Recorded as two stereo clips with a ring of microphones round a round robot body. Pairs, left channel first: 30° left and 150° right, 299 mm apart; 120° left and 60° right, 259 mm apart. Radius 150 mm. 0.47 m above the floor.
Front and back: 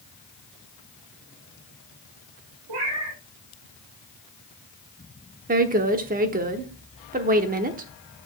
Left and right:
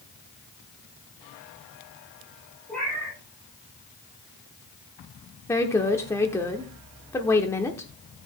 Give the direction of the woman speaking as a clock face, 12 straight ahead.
6 o'clock.